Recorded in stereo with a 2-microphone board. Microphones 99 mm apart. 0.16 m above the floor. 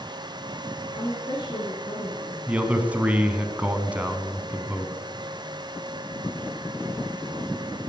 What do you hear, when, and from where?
0.9 s a woman speaking: 45° left (ahead or behind), 3 m
2.5 s a man speaking: 15° right (ahead or behind), 1.1 m